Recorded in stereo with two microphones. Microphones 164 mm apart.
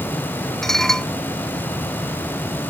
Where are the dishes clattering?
Centre (ahead or behind).